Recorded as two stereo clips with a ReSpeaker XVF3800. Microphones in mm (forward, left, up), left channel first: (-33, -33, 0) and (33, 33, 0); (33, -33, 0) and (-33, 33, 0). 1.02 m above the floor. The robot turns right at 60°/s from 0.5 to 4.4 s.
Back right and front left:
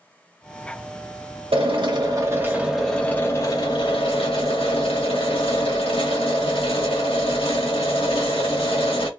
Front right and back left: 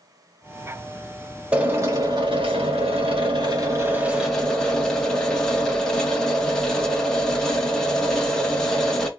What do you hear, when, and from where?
1.5 s a drill: 60° left, 1.1 m; by 9.1 s 130° right, 1.1 m